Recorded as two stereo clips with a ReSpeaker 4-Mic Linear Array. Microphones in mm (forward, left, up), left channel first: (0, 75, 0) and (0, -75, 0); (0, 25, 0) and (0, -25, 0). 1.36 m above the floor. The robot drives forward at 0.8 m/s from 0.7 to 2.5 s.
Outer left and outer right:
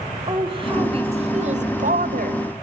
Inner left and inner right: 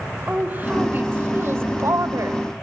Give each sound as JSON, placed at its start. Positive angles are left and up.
{"t": 0.3, "sound": "a woman speaking", "side_deg": -35, "distance_m": 2.0}